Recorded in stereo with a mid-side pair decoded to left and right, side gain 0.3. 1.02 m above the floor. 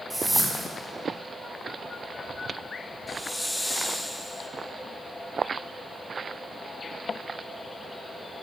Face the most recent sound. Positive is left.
turn(degrees=10)